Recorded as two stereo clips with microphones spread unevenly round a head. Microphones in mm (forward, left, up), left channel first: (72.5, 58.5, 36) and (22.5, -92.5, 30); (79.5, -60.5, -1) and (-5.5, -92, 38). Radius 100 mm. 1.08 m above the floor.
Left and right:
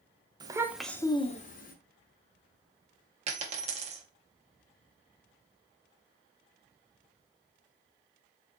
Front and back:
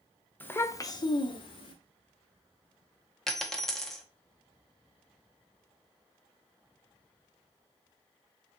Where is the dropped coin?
100° right, 0.5 m.